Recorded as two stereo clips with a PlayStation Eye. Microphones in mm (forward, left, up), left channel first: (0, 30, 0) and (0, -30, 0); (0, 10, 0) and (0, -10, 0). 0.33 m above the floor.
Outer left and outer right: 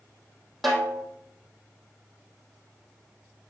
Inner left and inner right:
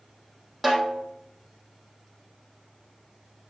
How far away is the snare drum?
About 2.5 m.